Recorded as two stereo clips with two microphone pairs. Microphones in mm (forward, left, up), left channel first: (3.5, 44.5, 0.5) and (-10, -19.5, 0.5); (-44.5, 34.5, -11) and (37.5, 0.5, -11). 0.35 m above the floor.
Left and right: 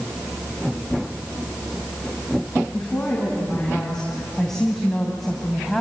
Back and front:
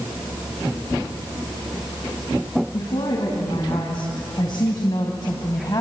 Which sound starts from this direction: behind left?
A woman speaking, at 2.7 s.